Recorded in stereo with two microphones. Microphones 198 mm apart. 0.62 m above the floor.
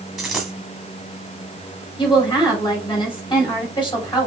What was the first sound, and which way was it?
A dropped coin, centre (ahead or behind).